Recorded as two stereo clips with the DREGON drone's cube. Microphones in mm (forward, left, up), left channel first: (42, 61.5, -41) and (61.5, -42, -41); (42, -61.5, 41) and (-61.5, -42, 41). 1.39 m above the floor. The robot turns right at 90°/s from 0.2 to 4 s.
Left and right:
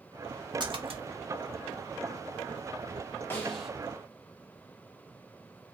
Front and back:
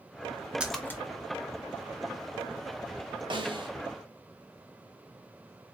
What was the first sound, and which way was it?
A splash, 110° right.